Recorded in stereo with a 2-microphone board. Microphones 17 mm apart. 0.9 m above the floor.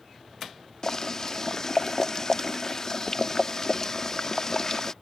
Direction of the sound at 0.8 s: 30° left (ahead or behind).